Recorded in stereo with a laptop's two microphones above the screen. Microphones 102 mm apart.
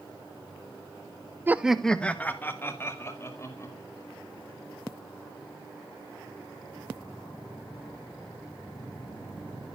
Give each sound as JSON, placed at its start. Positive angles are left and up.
{"t": 1.5, "sound": "laughter", "side_deg": -20, "distance_m": 0.6}